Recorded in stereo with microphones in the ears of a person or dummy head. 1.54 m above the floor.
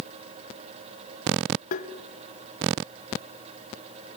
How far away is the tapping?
About 1.1 m.